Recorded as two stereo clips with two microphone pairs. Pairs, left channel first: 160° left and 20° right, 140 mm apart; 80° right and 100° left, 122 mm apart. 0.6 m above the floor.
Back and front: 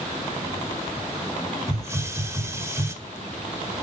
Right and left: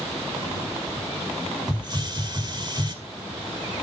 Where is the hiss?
45° left, 1.9 m.